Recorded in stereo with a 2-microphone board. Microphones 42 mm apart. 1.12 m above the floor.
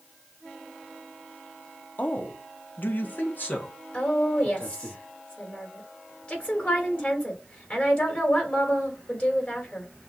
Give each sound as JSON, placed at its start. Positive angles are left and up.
{"t": 2.0, "sound": "a man speaking", "side_deg": 45, "distance_m": 0.9}
{"t": 3.9, "sound": "a woman speaking", "side_deg": 35, "distance_m": 3.0}